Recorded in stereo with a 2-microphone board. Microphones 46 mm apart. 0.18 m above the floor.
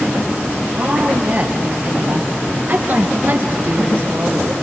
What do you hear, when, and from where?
0.7 s a woman speaking: 40° right (ahead or behind), 4 m; by 4.5 s 55° right (ahead or behind), 2.5 m